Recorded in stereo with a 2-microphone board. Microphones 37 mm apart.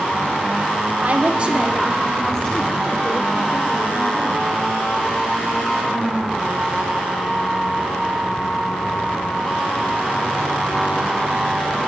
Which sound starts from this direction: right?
A woman speaking, at 1.0 s.